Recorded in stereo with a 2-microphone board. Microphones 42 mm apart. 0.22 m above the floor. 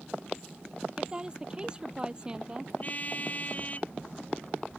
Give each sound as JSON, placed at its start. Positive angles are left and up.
{"t": 1.0, "sound": "a woman speaking", "side_deg": -20}
{"t": 2.8, "sound": "a car horn", "side_deg": 35}